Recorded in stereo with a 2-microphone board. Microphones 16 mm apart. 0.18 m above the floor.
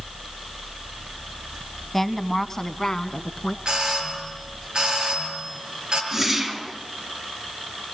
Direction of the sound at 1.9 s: 10° left (ahead or behind).